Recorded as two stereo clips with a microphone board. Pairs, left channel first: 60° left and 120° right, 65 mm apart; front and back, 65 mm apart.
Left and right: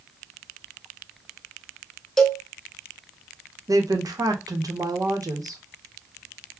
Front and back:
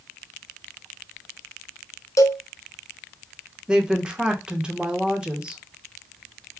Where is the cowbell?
20° right, 0.7 m.